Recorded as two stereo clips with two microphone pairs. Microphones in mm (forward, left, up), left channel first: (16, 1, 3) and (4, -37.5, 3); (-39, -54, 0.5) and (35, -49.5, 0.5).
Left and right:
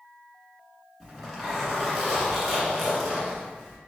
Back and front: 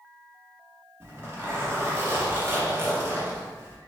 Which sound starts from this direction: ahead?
A zipper, at 1.0 s.